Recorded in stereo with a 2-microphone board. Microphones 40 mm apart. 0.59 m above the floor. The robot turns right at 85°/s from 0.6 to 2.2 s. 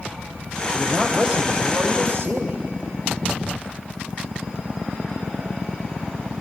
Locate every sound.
0.7 s a man speaking: 175° right, 3 m; by 2.6 s 55° right, 3 m